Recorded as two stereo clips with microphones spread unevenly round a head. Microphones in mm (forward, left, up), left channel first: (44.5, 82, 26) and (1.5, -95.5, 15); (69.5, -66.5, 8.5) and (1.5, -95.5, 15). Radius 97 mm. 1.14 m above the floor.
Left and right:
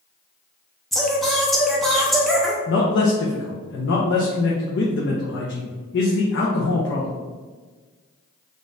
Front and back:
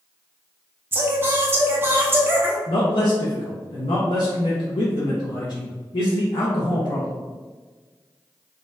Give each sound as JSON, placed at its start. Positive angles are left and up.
{"t": 0.9, "sound": "singing", "azimuth_deg": 170, "distance_m": 0.7}
{"t": 2.7, "sound": "a man speaking", "azimuth_deg": 55, "distance_m": 0.7}